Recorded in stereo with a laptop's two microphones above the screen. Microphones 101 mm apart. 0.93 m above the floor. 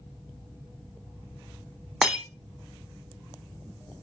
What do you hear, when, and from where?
2.0 s breaking glass: 5° right (ahead or behind), 1.2 m